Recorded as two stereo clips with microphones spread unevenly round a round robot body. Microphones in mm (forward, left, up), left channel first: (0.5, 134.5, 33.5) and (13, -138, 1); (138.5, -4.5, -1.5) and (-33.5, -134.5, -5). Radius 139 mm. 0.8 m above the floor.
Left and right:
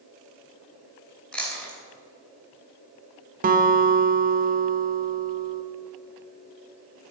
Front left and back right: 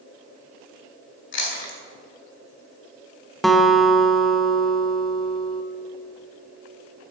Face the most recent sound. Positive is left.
turn(degrees=-55)